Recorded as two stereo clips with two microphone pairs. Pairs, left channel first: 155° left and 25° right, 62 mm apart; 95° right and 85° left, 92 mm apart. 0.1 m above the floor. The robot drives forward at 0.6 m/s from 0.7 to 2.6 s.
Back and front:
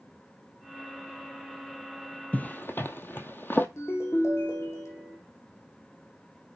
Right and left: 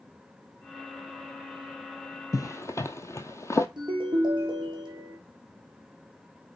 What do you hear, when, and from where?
2.3 s a zipper: 145° right, 0.5 m; by 3.7 s 155° right, 0.6 m
3.8 s a ringtone: 120° left, 4 m